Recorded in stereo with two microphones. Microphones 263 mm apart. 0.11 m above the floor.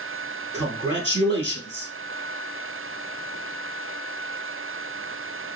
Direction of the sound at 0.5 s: 25° left (ahead or behind).